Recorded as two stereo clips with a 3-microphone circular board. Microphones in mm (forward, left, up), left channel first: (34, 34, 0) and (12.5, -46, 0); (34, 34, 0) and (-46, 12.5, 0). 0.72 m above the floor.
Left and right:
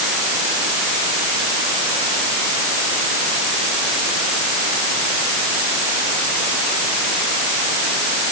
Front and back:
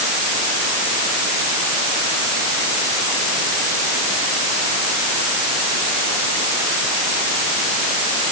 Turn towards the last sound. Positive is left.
No sound to turn to.